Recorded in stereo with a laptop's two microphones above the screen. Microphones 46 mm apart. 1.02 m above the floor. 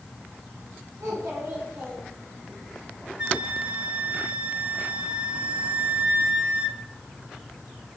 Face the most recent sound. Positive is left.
turn(degrees=-25)  # may be behind; listen again after turning